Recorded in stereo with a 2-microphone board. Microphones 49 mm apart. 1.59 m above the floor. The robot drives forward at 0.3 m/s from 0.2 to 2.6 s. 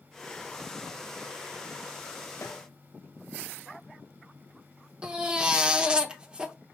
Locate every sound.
2.4 s a snare drum: 80° left, 1.1 m
5.0 s a baby crying: 15° right (ahead or behind), 0.9 m